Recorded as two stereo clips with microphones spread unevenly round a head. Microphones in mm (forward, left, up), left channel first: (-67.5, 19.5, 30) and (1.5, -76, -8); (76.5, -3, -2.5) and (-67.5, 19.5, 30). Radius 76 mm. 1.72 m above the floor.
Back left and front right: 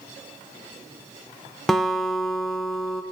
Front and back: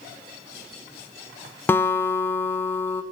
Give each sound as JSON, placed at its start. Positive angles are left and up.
{"t": 1.7, "sound": "a guitar", "azimuth_deg": 80, "distance_m": 0.6}